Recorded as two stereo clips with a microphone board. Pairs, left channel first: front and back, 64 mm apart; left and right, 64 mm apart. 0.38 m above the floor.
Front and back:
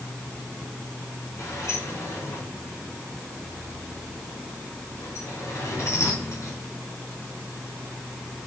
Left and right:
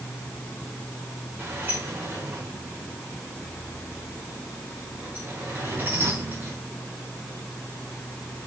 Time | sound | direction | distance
1.4 | a sliding door | 35° right | 5 m